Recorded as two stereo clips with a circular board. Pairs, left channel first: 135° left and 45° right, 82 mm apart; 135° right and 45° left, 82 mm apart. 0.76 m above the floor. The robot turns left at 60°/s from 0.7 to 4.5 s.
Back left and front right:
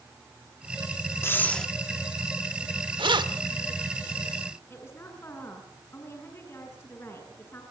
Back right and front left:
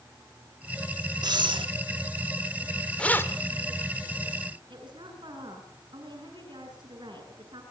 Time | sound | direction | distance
1.2 | breathing | 75° left | 1.2 m
3.0 | keys jangling | 55° right | 1.6 m
4.7 | a woman speaking | 75° left | 8.5 m